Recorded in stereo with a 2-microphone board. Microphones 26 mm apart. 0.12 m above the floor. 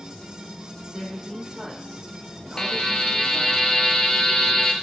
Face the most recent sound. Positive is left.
turn(degrees=30)  # may be behind; listen again after turning